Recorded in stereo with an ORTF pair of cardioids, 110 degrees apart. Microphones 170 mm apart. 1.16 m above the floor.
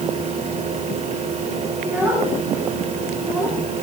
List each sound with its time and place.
0.0 s a fan: 40° right, 2 m
1.8 s a child speaking: 10° right, 9.5 m